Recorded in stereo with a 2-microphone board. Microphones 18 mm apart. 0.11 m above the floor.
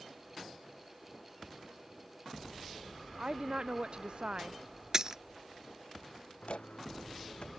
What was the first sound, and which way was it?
A woman speaking, 65° right (ahead or behind).